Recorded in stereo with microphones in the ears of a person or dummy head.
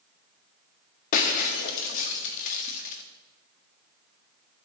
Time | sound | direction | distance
1.1 | breaking glass | 45° left (ahead or behind) | 1.3 m